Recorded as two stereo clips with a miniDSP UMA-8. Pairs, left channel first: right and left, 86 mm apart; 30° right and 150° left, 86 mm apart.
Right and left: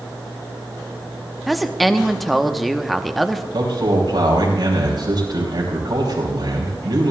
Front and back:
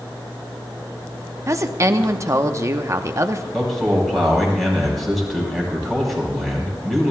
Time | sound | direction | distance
1.5 | a woman speaking | straight behind | 0.9 m
3.5 | a man speaking | 60° left | 5 m